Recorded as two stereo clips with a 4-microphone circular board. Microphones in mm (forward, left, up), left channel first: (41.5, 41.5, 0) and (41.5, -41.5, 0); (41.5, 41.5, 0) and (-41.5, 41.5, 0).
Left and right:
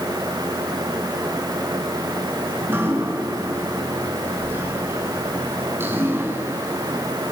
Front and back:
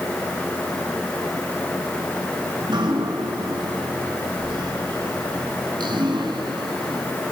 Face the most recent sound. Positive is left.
turn(degrees=-155)